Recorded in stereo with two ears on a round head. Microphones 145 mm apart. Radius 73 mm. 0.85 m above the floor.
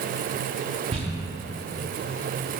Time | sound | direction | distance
0.9 | crumpling | 35° right (ahead or behind) | 1.3 m